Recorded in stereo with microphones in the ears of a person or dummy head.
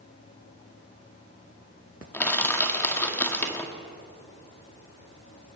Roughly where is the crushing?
Centre.